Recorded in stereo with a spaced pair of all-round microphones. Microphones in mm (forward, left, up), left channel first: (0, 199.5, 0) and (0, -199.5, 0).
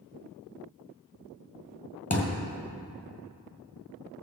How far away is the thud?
About 1.8 m.